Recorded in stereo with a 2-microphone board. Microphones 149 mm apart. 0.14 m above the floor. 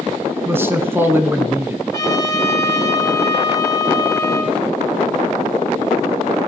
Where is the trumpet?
20° left (ahead or behind), 4 m.